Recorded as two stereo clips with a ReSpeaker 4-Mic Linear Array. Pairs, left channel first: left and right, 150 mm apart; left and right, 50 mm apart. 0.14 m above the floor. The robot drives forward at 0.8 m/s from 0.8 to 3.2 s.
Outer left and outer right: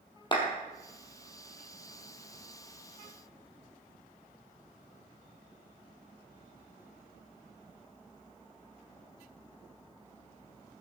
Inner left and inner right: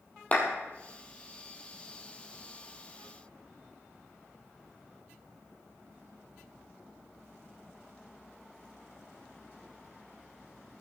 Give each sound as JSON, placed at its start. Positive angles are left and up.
{"t": 0.3, "sound": "a clap", "side_deg": 30, "distance_m": 3.0}